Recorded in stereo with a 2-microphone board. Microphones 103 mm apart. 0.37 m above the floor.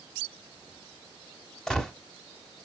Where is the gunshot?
5° left (ahead or behind), 1.2 m.